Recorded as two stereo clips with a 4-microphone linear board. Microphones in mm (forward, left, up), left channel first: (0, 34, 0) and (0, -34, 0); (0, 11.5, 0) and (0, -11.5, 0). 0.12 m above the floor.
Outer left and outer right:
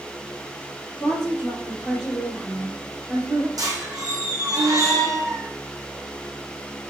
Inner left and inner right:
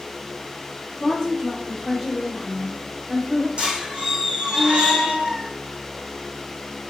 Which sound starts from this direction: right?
A squeak, at 3.6 s.